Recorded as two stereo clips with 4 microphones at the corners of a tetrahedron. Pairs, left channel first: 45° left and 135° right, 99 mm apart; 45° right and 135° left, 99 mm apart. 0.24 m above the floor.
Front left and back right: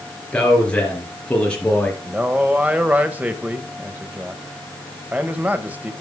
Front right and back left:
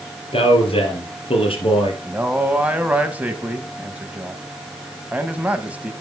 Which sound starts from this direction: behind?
A man speaking, at 2.0 s.